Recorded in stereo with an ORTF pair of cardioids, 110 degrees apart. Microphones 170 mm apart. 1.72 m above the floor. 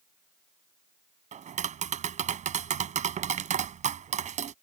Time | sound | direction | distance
1.3 | tapping | 45° right | ?